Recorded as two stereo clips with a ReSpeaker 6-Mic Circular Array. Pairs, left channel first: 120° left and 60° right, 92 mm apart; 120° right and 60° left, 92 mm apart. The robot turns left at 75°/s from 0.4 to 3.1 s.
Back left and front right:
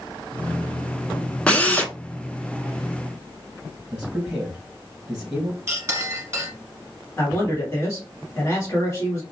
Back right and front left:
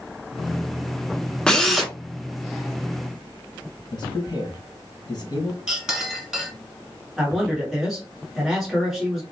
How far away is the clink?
About 1.3 m.